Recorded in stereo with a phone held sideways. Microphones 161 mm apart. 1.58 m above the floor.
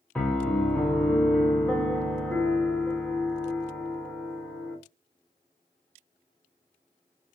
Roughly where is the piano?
Centre.